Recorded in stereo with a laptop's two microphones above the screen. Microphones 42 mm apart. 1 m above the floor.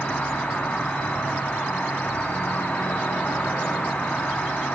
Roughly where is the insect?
Left.